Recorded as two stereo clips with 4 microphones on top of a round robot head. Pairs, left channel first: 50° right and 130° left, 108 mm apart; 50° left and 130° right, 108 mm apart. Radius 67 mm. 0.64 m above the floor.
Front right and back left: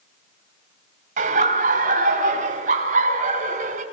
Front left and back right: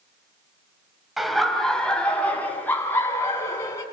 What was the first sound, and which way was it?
Laughter, 145° left.